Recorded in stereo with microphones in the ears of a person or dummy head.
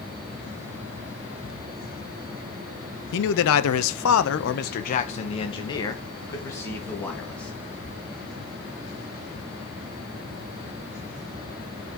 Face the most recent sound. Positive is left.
turn(degrees=10)  # may be behind; listen again after turning